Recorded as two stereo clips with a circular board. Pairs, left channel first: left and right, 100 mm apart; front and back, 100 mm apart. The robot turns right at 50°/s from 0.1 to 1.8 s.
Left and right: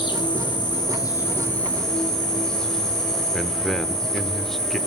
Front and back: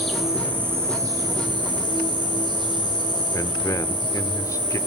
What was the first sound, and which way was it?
An insect, 85° left.